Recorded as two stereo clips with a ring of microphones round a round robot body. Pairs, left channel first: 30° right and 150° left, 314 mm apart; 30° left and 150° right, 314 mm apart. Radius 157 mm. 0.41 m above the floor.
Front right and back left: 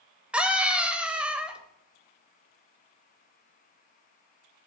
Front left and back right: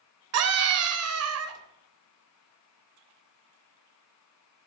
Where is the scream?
125° right, 2 m.